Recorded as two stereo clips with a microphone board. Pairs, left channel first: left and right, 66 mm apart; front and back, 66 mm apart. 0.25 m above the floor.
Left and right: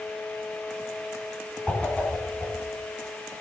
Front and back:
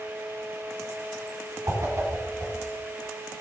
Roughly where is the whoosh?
Behind left.